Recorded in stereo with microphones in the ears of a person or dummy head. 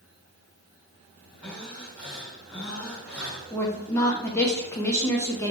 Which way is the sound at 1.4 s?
5° left (ahead or behind).